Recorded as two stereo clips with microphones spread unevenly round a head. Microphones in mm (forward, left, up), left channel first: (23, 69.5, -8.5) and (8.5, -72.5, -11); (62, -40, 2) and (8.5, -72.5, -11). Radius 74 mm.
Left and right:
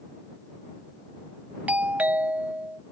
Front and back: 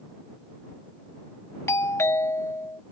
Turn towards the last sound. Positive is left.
turn(degrees=-15)